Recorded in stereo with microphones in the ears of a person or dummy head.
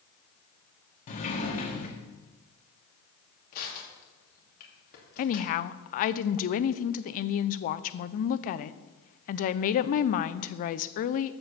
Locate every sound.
1.1 s a sliding door: 45° left (ahead or behind), 1.7 m
3.5 s crushing: 45° left (ahead or behind), 3 m
5.2 s a woman speaking: 55° left (ahead or behind), 0.5 m